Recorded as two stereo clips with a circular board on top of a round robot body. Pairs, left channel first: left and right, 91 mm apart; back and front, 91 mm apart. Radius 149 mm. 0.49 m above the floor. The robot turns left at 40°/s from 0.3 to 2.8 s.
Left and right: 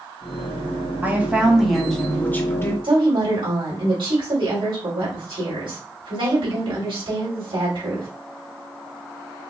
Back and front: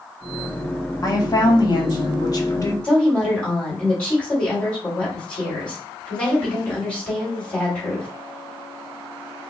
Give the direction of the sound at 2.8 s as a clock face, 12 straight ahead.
3 o'clock.